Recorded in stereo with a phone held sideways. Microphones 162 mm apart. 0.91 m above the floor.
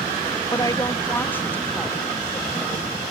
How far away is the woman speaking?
About 0.9 m.